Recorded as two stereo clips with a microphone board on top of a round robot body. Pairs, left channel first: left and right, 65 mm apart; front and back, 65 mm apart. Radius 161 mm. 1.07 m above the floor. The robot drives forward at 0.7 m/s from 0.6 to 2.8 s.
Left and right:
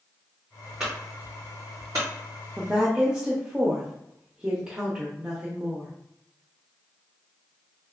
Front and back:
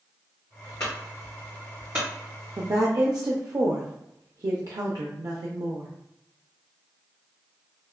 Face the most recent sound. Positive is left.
turn(degrees=-165)